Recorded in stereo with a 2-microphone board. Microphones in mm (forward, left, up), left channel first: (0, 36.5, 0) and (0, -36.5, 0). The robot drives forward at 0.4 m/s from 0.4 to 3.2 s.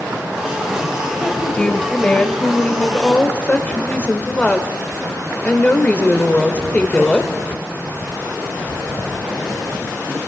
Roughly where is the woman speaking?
Centre.